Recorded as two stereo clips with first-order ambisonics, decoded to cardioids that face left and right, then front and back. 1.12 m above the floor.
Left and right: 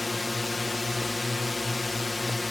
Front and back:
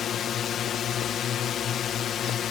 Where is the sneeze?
No sneeze in this recording.